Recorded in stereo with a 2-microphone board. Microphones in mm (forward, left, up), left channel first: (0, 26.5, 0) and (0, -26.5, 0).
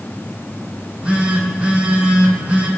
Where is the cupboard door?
No cupboard door in this recording.